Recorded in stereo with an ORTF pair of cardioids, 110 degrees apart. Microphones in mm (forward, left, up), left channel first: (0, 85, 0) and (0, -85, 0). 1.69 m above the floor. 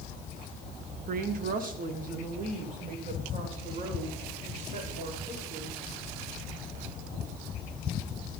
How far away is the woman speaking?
About 1.6 m.